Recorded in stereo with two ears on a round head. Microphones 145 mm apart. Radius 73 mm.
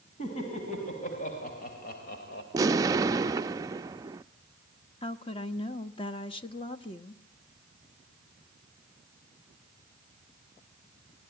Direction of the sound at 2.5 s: 20° right (ahead or behind).